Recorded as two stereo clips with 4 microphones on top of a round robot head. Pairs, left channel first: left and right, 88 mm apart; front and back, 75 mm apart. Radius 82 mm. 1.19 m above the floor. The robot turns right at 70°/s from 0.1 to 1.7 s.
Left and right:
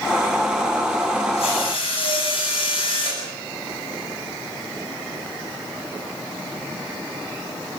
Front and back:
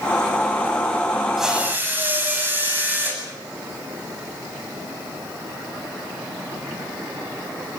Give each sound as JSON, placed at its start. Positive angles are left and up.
{"t": 1.4, "sound": "a drill", "azimuth_deg": 90, "distance_m": 9.0}